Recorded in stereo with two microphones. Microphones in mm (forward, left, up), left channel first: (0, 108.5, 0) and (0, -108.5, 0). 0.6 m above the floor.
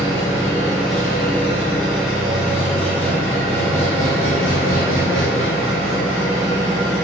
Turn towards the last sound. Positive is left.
turn(degrees=-70)  # may be behind; listen again after turning